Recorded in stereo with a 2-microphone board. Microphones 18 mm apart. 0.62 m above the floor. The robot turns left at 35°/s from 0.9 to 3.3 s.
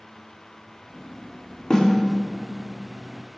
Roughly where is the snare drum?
Left.